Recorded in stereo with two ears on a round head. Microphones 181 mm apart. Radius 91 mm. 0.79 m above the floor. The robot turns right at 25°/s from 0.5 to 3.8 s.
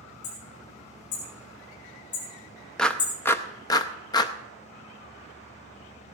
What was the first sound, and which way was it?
Hammering, 85° left.